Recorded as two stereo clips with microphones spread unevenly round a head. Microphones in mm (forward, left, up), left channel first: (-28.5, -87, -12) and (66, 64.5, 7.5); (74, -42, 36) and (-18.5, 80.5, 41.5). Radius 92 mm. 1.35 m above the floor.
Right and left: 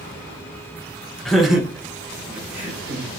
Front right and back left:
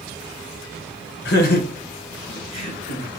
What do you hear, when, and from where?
1.2 s laughter: 35° right, 0.8 m; by 3.1 s 20° right, 2.5 m